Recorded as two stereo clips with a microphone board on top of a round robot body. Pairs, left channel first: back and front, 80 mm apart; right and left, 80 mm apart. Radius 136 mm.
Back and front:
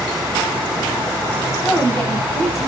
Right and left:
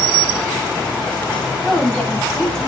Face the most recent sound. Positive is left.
turn(degrees=-55)